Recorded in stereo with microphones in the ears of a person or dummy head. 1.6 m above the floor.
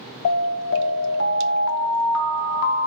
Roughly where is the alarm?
Left.